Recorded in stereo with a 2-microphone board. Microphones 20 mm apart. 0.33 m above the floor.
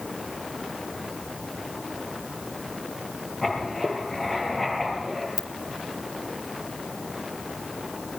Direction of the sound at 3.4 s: 15° left (ahead or behind).